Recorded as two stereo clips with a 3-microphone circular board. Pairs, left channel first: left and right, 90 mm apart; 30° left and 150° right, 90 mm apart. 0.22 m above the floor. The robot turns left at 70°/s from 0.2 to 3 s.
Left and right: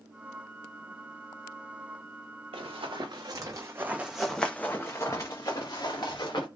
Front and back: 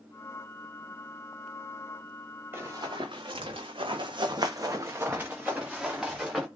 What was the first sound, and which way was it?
Running footsteps, 85° right.